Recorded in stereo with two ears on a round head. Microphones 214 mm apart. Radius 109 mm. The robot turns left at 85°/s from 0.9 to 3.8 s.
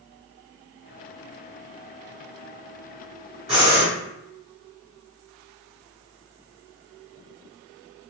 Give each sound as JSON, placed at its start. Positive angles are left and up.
{"t": 3.5, "sound": "breathing", "side_deg": 0, "distance_m": 1.8}